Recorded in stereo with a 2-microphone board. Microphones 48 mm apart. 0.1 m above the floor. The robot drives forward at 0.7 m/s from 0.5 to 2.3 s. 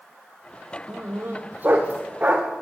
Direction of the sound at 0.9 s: 45° right (ahead or behind).